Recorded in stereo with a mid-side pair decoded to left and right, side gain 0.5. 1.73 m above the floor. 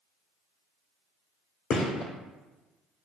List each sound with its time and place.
1.7 s a gunshot: 45° left, 1.1 m